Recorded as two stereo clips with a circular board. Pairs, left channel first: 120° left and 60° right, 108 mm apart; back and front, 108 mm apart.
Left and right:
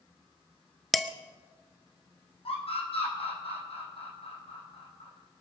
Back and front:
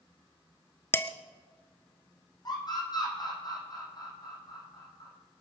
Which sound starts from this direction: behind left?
A scream, at 2.5 s.